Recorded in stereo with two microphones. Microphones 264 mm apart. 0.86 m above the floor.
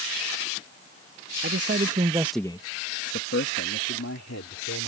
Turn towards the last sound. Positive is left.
turn(degrees=75)  # may be behind; listen again after turning